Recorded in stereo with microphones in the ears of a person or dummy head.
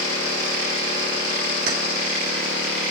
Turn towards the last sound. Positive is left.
turn(degrees=-55)  # may be behind; listen again after turning